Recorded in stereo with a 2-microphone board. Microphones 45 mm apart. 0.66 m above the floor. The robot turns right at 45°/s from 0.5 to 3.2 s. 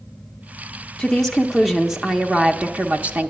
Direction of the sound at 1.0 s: 160° left.